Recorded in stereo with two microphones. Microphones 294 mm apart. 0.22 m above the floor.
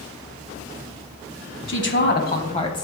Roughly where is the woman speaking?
Left.